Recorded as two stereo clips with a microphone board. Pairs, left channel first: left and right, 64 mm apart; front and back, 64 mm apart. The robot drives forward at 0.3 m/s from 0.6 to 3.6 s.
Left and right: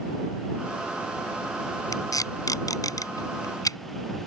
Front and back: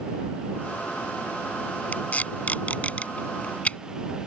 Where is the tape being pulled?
65° left; by 3.8 s 70° left.